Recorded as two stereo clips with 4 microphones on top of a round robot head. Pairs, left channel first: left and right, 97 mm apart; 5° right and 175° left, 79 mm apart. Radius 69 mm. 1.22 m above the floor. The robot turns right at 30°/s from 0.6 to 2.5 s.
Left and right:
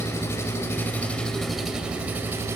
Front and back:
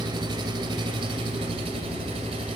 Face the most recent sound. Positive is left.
turn(degrees=-150)